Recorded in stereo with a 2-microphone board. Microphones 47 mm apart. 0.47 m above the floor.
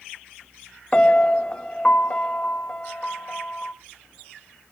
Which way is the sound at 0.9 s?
20° left (ahead or behind).